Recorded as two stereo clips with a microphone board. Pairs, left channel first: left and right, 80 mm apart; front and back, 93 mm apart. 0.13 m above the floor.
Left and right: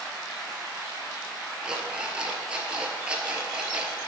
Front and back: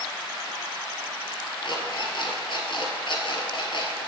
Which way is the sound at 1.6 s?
15° right.